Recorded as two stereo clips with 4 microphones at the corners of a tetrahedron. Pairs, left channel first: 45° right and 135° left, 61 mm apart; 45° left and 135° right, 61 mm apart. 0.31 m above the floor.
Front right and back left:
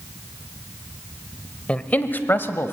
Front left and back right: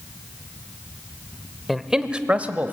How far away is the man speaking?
About 0.9 m.